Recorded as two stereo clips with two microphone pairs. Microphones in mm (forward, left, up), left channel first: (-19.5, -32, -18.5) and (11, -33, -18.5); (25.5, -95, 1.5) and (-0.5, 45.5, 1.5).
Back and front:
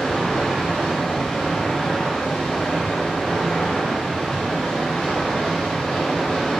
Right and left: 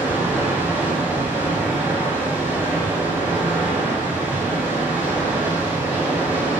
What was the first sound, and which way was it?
Running water, 170° left.